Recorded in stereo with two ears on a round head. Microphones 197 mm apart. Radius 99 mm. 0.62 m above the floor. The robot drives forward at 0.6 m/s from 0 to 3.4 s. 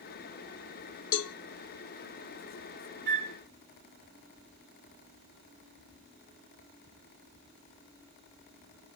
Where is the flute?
50° right (ahead or behind), 3 m.